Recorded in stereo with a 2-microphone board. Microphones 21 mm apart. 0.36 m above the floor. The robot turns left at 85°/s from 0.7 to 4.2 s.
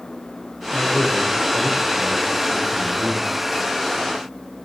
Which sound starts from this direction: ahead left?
A man speaking, at 0.7 s.